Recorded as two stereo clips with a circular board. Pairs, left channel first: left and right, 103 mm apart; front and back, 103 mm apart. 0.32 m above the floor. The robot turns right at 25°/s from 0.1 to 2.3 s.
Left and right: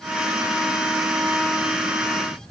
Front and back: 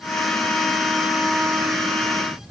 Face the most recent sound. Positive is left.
No sound to turn to.